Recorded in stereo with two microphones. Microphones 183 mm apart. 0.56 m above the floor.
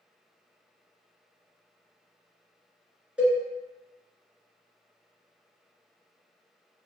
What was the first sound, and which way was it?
A cowbell, 5° right (ahead or behind).